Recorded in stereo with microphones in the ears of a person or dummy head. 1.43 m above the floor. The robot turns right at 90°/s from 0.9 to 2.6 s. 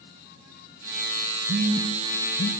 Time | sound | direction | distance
1.5 | a phone buzzing | 55° right (ahead or behind) | 1.1 m